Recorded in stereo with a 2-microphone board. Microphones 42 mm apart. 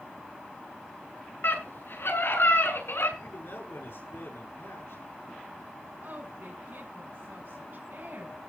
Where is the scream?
65° left (ahead or behind), 7.5 m; by 3.1 s 80° left, 6.5 m.